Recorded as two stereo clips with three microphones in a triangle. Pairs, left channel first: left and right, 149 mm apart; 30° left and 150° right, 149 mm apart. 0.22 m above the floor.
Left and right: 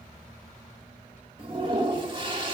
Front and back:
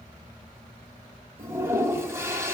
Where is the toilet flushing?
90° right, 0.9 m.